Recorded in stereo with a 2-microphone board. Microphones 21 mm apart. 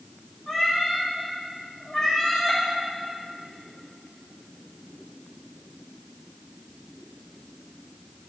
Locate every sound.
0.5 s a cat meowing: 20° left (ahead or behind), 3 m